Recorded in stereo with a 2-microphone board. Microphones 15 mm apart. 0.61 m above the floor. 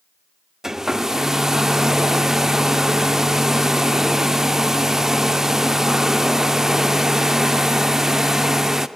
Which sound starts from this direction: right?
A hair dryer, at 0.6 s.